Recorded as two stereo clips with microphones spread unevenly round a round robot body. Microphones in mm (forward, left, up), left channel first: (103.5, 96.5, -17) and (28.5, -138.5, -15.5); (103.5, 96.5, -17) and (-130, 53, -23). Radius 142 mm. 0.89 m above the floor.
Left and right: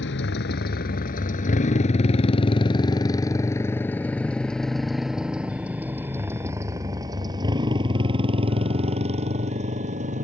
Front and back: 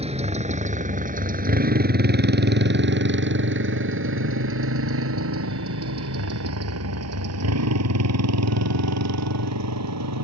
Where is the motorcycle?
125° left; by 10.2 s 175° right.